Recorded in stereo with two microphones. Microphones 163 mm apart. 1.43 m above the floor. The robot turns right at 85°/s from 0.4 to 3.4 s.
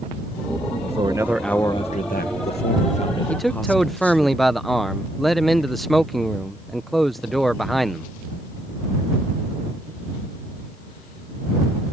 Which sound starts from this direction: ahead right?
A man speaking, at 0.8 s.